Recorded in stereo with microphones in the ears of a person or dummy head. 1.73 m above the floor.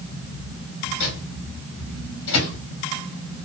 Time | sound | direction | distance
1.0 | a microwave | 65° left (ahead or behind) | 2.0 m